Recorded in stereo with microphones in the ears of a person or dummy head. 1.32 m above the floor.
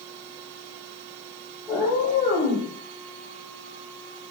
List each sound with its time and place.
1.7 s a cat meowing: centre (ahead or behind), 1.2 m; by 2.7 s 15° right (ahead or behind), 1.8 m